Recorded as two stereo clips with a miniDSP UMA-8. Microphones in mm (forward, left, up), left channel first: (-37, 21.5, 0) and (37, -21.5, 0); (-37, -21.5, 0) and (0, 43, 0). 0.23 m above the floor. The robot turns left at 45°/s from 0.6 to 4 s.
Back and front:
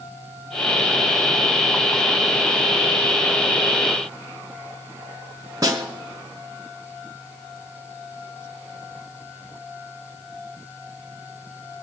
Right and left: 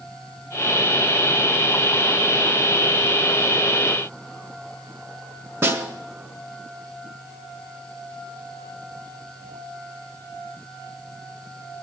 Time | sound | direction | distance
5.6 | a snare drum | 15° left | 1.6 m